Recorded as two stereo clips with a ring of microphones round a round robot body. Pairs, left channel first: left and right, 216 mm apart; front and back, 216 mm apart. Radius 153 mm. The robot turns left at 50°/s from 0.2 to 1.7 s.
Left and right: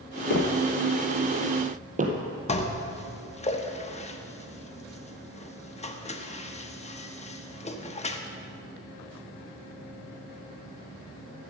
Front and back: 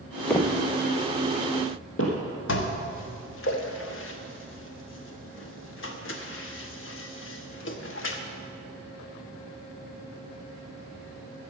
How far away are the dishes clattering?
About 1.2 m.